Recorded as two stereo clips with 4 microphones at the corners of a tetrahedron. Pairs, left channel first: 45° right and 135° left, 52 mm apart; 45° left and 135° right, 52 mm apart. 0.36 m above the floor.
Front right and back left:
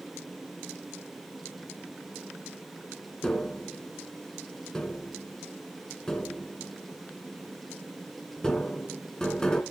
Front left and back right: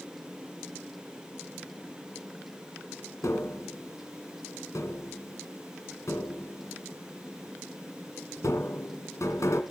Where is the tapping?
30° left, 2.5 m.